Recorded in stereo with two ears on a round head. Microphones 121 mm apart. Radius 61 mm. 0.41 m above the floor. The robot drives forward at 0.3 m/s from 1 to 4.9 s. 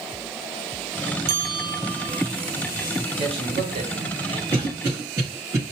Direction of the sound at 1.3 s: 60° right (ahead or behind).